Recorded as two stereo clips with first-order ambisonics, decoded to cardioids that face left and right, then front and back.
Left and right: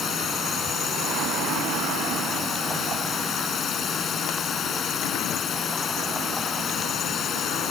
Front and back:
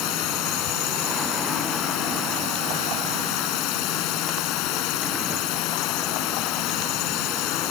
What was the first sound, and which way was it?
A drone, 30° left.